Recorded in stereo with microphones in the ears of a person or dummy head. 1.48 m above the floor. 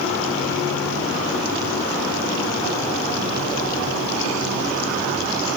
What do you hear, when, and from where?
Only background noise.